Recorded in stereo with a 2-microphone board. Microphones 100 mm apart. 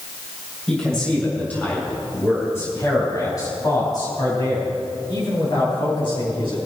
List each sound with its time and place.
0.7 s a man speaking: 5° left (ahead or behind), 3.5 m; by 6.6 s 55° left (ahead or behind), 6.5 m